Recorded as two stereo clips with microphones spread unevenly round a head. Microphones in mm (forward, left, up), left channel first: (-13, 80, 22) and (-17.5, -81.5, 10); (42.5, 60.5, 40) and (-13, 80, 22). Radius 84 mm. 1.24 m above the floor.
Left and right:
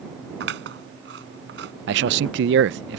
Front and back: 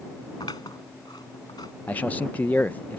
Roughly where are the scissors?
Right.